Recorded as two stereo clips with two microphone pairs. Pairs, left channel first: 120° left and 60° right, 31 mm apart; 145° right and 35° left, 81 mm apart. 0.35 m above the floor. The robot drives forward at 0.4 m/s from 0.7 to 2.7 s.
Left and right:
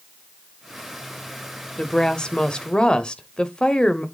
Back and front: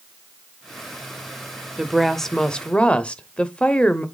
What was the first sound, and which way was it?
A woman speaking, 110° left.